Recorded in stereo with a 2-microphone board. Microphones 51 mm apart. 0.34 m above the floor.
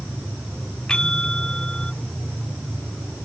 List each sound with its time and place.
0.9 s a bell: 15° left (ahead or behind)